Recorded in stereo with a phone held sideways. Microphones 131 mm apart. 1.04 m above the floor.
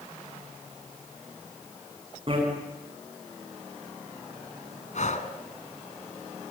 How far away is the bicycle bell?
About 6.5 m.